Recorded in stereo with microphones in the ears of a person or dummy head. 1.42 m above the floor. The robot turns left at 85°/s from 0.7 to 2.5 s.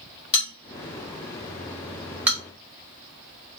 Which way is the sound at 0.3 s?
40° left (ahead or behind).